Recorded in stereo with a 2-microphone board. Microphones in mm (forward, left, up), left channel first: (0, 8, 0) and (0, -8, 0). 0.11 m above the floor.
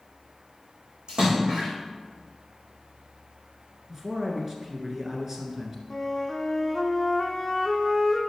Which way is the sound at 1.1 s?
65° right (ahead or behind).